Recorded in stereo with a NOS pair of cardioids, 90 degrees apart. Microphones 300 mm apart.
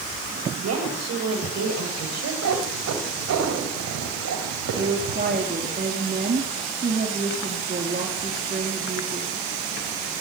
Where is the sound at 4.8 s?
30° right, 4 m.